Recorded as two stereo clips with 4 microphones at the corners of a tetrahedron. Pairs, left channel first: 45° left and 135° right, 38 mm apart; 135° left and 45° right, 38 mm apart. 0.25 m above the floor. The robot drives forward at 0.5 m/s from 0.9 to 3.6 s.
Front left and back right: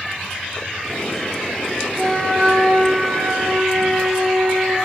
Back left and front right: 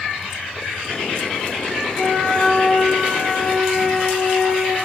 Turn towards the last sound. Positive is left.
turn(degrees=-160)